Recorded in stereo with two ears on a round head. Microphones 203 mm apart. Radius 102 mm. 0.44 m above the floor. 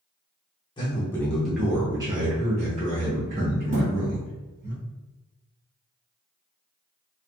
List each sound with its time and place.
0.8 s a man speaking: 20° left (ahead or behind), 0.8 m; by 4.7 s 50° right (ahead or behind), 1.9 m
3.7 s a thud: 35° right (ahead or behind), 1.5 m